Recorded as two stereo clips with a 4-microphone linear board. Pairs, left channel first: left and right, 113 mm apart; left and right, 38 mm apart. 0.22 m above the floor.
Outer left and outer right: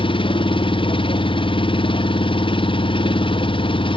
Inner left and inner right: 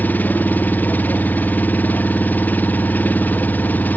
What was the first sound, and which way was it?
An engine running, 50° left (ahead or behind).